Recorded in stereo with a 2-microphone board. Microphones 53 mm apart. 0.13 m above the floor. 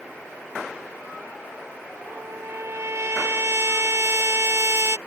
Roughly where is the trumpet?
Right.